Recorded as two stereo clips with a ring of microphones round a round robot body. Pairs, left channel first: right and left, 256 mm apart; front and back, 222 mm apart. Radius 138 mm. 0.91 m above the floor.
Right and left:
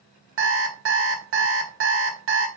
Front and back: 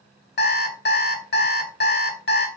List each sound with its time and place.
0.4 s an alarm clock: 45° left, 1.0 m